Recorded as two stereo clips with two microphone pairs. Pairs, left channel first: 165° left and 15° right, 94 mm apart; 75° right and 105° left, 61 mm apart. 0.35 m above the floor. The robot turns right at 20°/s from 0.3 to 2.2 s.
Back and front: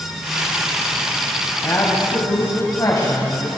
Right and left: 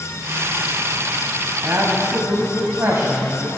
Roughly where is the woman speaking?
Behind left.